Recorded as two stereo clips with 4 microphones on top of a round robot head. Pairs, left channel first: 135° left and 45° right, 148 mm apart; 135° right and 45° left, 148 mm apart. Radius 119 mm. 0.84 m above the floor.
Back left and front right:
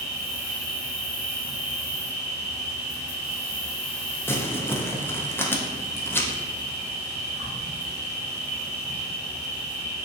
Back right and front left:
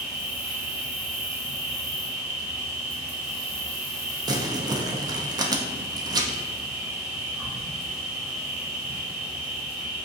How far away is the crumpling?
About 0.5 m.